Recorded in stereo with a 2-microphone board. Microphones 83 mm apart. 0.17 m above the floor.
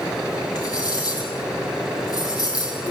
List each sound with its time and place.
0.6 s cutlery clinking: 50° left (ahead or behind), 4 m